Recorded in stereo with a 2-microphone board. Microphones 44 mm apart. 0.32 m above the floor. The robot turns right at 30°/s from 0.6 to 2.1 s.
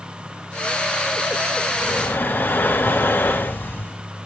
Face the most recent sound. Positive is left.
turn(degrees=55)  # may be behind; listen again after turning